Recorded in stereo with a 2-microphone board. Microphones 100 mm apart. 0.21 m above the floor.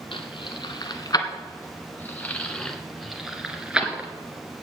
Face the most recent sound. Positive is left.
turn(degrees=-15)  # may be behind; listen again after turning